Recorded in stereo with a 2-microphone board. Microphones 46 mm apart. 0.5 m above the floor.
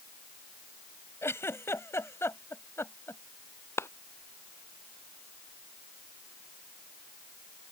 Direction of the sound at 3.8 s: 70° left (ahead or behind).